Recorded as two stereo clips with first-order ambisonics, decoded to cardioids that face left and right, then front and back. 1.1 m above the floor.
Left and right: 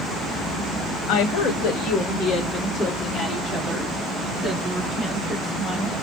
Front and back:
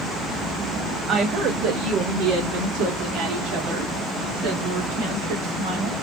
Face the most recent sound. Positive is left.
turn(degrees=-170)